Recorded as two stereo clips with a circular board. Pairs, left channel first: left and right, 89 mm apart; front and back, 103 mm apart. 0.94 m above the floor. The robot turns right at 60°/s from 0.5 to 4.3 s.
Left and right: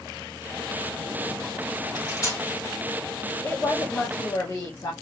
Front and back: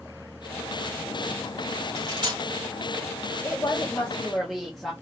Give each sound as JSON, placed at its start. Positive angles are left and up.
{"t": 1.9, "sound": "cutlery clinking", "azimuth_deg": 120, "distance_m": 1.5}
{"t": 3.4, "sound": "a woman speaking", "azimuth_deg": 35, "distance_m": 0.9}